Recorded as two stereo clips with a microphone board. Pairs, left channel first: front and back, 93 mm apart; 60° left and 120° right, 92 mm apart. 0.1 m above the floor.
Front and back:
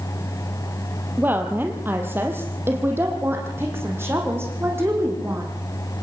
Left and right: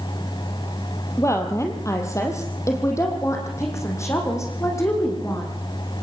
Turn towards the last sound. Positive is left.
turn(degrees=115)